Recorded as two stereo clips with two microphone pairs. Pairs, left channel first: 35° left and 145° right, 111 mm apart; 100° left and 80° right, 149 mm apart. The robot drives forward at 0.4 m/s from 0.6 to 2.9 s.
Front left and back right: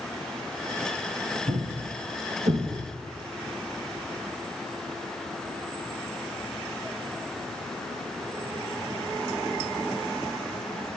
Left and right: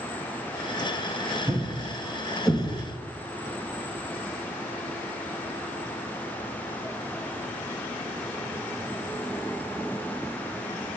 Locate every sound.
1.5 s a thud: 150° right, 2 m; by 3.0 s 155° right, 2.5 m